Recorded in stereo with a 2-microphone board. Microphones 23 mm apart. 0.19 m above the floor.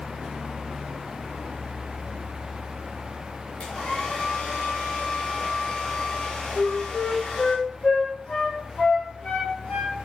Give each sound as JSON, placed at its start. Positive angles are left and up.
{"t": 3.6, "sound": "a hair dryer", "side_deg": 55, "distance_m": 8.5}
{"t": 6.5, "sound": "a flute", "side_deg": 65, "distance_m": 8.0}